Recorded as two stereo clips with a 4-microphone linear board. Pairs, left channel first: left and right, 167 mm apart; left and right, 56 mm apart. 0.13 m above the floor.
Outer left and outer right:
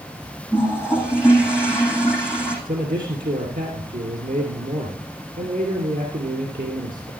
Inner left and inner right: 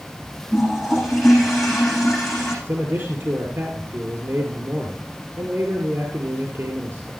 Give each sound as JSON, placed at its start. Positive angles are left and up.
{"t": 0.5, "sound": "a toilet flushing", "side_deg": -5, "distance_m": 7.5}
{"t": 2.6, "sound": "a man speaking", "side_deg": -60, "distance_m": 2.5}